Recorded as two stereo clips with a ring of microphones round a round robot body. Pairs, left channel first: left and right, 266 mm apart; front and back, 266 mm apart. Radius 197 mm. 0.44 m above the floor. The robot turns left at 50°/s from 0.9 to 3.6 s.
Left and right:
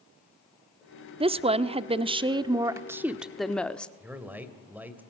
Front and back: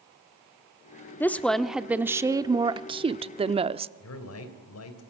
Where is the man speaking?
5° right, 3 m.